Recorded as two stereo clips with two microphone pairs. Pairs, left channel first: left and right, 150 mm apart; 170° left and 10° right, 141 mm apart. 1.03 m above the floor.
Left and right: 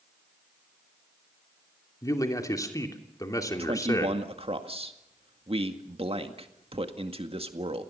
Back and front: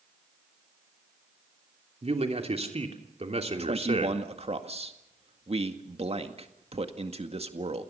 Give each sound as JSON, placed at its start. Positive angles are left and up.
{"t": 2.0, "sound": "a man speaking", "azimuth_deg": 25, "distance_m": 3.0}
{"t": 3.6, "sound": "a man speaking", "azimuth_deg": -45, "distance_m": 2.0}